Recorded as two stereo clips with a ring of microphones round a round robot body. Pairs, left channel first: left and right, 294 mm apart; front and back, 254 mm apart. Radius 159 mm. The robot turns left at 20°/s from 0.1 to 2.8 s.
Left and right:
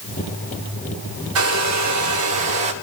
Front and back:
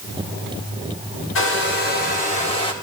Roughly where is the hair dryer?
Ahead right.